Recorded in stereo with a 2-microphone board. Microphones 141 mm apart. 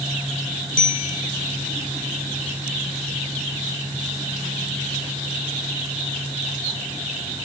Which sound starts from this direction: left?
A bicycle bell, at 0.8 s.